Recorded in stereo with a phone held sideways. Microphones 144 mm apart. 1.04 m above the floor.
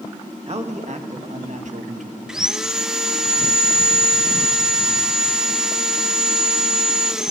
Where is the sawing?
5° right (ahead or behind), 0.6 m.